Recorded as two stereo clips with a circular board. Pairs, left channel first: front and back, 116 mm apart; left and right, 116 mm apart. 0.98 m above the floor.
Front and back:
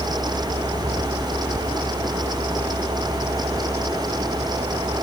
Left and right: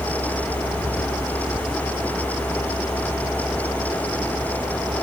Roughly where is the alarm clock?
I don't hear an alarm clock.